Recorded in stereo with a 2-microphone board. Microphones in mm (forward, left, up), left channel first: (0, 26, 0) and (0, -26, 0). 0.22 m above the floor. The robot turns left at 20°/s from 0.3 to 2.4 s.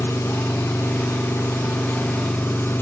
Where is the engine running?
100° left, 1.1 m; by 2.8 s 55° left, 1.1 m.